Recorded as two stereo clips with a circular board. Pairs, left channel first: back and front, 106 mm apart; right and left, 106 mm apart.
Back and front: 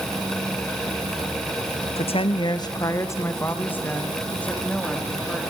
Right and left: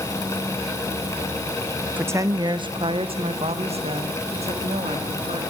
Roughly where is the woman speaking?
Behind.